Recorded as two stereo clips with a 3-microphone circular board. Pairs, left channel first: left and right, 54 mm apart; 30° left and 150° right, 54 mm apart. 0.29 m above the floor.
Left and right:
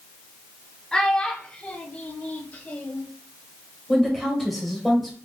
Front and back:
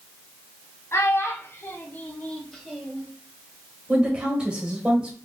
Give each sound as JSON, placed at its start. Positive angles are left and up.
{"t": 0.9, "sound": "a child speaking", "azimuth_deg": 15, "distance_m": 1.1}
{"t": 3.9, "sound": "a woman speaking", "azimuth_deg": 175, "distance_m": 1.5}